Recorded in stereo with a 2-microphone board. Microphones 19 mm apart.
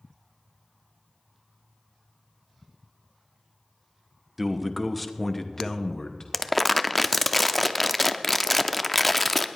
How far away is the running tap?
I don't hear a running tap.